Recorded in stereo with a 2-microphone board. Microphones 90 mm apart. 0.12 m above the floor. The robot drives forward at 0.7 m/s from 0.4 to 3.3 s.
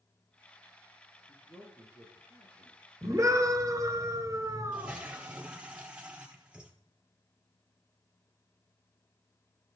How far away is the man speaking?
About 5 m.